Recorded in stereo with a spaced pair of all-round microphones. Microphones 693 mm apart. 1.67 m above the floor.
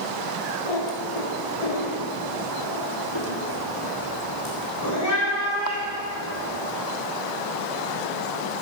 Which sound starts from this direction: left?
A cat meowing, at 0.7 s.